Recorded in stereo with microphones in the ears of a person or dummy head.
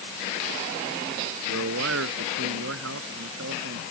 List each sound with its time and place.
1.5 s a man speaking: 75° right (ahead or behind); by 3.8 s 80° right